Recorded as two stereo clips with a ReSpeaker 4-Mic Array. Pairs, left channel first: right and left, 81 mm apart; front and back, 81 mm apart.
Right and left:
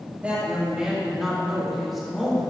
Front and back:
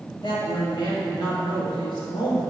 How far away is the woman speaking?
About 2.5 m.